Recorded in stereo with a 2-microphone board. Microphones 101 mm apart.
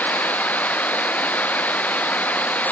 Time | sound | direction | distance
0.0 | running water | 15° left (ahead or behind) | ?